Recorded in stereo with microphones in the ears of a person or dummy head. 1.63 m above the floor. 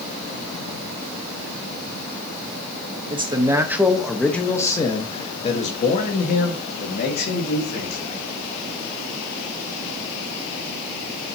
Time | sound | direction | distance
3.1 | a man speaking | 20° right (ahead or behind) | 1.3 m